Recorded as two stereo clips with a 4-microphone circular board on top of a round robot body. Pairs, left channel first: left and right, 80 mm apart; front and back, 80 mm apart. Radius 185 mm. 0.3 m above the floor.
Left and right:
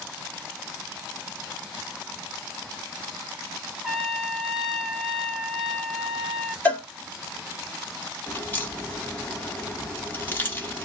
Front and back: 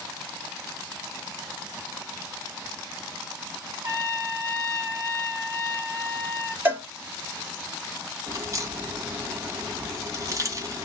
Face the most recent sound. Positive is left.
turn(degrees=150)